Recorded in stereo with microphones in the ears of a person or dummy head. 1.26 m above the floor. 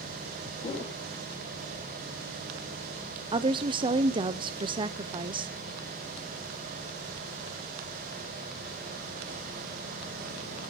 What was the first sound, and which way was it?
A whoosh, 25° left (ahead or behind).